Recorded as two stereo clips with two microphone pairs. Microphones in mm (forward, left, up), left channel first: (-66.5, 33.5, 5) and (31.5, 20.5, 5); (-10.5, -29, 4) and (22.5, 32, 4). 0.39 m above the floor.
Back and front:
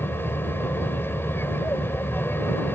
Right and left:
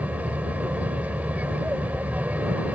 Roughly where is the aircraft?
Behind left.